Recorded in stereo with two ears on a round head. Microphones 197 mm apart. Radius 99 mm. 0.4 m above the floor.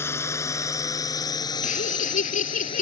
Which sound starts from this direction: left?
Laughter, at 1.6 s.